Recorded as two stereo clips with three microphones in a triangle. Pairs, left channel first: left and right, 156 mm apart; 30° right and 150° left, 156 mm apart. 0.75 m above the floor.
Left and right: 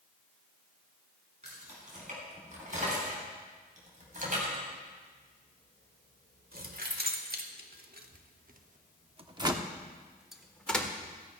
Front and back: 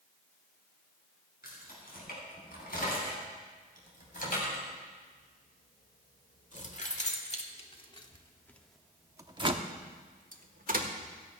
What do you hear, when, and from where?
1.4 s keys jangling: 50° right, 5 m; by 10.9 s 170° left, 1.4 m